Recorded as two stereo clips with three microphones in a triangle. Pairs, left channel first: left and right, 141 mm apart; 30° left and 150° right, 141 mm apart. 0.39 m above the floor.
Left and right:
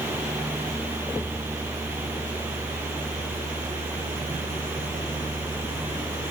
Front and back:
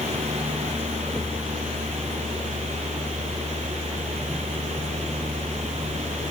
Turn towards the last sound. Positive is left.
No sound to turn to.